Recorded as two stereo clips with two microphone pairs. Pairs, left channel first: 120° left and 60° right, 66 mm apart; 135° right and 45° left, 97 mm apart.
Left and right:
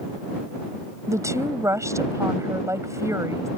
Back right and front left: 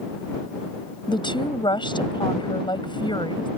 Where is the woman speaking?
100° right.